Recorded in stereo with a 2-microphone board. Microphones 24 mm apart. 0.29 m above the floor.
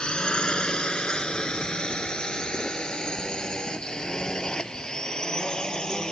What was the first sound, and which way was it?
A drone, 45° left (ahead or behind).